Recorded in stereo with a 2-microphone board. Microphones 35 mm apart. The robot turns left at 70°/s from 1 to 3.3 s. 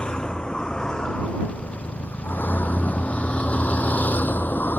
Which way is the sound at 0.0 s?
25° left (ahead or behind).